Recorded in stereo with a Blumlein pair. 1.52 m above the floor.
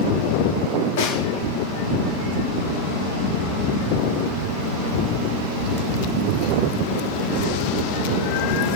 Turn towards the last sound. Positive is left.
turn(degrees=50)